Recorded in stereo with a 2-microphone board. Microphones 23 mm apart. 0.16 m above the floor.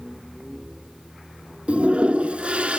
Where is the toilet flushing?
60° right (ahead or behind), 0.6 m.